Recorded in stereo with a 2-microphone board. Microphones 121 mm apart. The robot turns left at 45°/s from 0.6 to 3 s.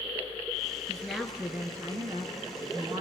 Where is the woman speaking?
10° left, 2 m; by 3.0 s 85° right, 2 m.